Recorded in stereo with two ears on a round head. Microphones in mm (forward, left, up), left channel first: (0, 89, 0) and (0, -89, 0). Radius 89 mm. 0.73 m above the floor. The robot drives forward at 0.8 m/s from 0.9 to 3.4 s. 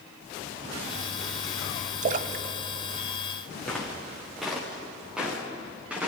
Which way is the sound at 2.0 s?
35° right (ahead or behind).